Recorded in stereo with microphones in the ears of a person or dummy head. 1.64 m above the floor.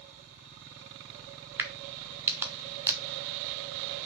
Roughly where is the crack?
Centre.